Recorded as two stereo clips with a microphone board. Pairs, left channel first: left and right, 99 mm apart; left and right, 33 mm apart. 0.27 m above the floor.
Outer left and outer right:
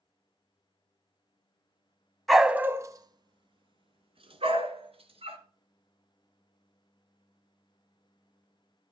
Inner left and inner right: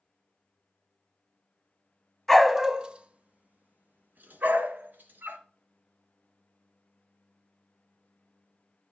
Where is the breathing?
No breathing in this recording.